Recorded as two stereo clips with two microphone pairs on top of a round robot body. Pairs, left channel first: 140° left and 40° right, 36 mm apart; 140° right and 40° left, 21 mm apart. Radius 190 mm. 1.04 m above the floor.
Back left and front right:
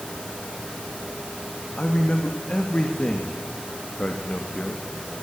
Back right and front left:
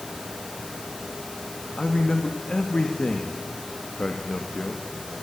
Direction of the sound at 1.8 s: 165° right.